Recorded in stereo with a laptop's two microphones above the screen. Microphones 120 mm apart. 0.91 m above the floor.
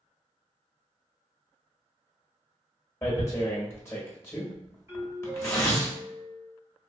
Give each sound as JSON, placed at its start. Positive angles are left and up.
{"t": 3.0, "sound": "tearing paper", "side_deg": 20, "distance_m": 0.9}
{"t": 4.9, "sound": "a doorbell", "side_deg": -20, "distance_m": 1.4}